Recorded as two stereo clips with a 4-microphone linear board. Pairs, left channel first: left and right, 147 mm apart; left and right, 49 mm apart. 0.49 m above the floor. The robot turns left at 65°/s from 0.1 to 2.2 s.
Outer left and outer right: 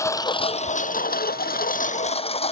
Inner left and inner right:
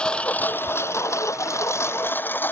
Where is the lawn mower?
20° left (ahead or behind); by 2.5 s 45° left (ahead or behind).